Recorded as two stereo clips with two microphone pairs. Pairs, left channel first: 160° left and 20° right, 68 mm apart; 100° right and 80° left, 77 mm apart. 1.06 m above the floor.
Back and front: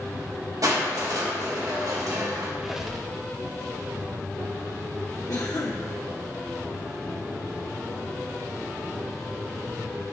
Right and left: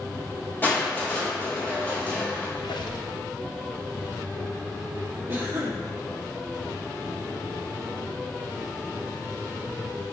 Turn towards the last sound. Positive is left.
turn(degrees=130)